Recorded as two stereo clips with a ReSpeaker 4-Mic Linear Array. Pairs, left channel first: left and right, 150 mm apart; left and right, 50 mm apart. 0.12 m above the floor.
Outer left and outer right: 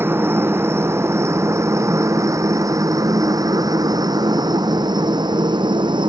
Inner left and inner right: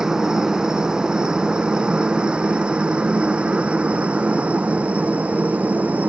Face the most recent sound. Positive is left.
turn(degrees=-30)  # may be behind; listen again after turning